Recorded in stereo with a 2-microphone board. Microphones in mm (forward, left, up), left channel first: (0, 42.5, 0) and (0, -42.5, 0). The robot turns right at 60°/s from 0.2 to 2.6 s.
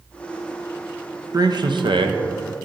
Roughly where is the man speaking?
Behind right.